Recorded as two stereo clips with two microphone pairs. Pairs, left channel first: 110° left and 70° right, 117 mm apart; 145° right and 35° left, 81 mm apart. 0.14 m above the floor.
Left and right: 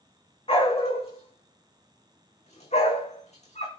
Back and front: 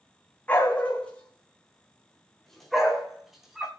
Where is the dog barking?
140° left, 4 m; by 3.7 s 115° left, 3.5 m.